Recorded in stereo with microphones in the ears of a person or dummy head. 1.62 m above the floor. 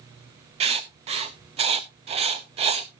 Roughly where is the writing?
Right.